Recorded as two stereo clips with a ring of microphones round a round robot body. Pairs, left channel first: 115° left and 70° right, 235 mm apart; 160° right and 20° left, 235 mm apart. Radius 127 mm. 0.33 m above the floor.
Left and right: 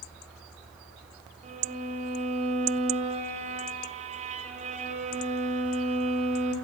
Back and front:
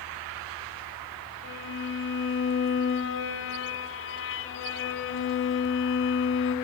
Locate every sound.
1.4 s a violin: 125° right, 3.5 m